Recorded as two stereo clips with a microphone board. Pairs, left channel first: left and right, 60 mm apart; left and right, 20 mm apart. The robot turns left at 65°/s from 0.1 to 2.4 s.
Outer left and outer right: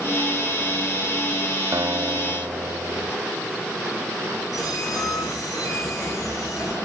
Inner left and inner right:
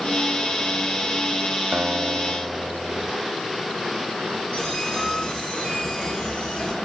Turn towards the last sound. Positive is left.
turn(degrees=80)